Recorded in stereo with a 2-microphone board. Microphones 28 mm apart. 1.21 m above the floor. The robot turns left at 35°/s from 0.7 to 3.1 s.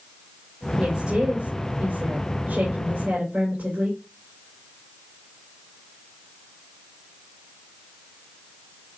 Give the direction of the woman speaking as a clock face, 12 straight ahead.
1 o'clock.